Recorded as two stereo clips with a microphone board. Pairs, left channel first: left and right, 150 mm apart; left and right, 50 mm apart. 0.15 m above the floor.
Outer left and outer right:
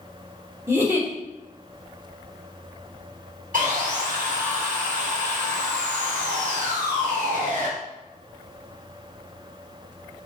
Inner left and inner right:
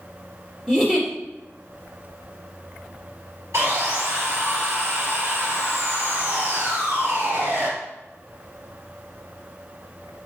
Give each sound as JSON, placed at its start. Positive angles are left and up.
{"t": 0.7, "sound": "a giggle", "side_deg": -15, "distance_m": 3.0}
{"t": 3.5, "sound": "sawing", "side_deg": -60, "distance_m": 2.5}